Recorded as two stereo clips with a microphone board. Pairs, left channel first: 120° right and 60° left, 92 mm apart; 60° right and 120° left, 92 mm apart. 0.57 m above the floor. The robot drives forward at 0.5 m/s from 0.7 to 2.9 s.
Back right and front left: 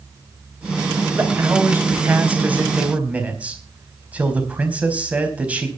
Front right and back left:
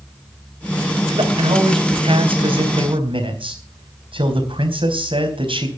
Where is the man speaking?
125° left, 3.5 m; by 5.7 s 135° left, 4 m.